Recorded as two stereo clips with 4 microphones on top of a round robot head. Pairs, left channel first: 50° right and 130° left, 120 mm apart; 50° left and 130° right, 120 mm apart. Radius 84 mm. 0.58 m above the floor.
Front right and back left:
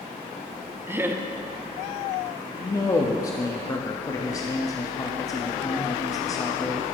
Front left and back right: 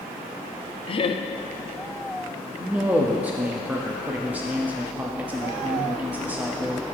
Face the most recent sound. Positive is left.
turn(degrees=-70)